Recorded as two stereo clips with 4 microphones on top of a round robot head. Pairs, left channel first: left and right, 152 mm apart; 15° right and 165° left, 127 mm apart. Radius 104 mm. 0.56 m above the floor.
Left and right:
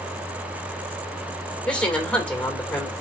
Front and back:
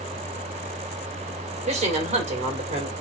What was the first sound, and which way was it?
A woman speaking, 170° left.